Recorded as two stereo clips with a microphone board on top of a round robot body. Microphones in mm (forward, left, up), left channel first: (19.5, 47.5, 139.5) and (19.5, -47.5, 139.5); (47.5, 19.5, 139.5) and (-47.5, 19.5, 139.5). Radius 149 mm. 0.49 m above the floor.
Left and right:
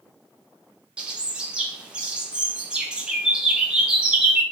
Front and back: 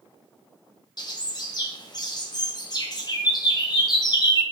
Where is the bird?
15° right, 0.9 m.